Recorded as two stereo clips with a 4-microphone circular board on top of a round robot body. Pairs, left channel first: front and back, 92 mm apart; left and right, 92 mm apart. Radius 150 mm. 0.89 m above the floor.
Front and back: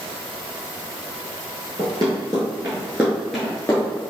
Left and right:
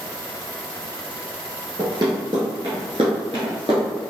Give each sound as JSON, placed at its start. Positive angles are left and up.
{"t": 1.8, "sound": "running footsteps", "azimuth_deg": -135, "distance_m": 1.3}